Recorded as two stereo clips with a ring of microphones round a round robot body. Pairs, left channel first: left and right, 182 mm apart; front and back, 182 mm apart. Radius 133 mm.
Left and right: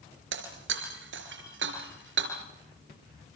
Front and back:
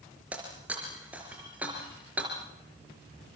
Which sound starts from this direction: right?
Breaking glass, at 0.3 s.